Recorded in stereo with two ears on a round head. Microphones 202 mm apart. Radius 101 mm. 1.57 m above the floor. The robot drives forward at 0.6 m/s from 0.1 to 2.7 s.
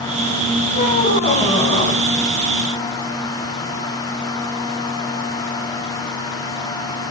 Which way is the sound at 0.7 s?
35° left (ahead or behind).